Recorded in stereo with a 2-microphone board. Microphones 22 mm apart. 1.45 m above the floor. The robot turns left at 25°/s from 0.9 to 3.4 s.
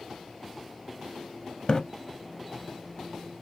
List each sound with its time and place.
1.7 s a splash: 45° left (ahead or behind), 0.7 m; by 1.8 s 40° left (ahead or behind), 0.7 m